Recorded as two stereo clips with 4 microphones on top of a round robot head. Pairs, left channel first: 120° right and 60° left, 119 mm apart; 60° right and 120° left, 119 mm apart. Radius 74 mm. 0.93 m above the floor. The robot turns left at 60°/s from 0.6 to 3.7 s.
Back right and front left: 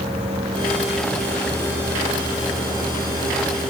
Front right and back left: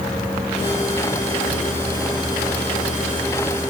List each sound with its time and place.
Only background noise.